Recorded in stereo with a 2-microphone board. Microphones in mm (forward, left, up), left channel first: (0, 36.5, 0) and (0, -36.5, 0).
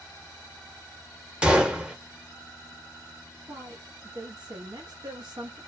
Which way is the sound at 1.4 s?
15° right (ahead or behind).